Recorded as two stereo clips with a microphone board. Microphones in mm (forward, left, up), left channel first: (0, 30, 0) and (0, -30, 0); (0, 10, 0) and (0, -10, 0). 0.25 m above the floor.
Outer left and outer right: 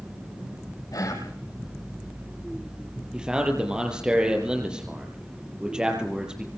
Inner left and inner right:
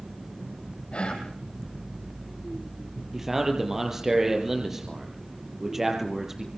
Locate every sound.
0.9 s whispering: 80° left, 8.5 m
3.1 s a man speaking: 15° right (ahead or behind), 6 m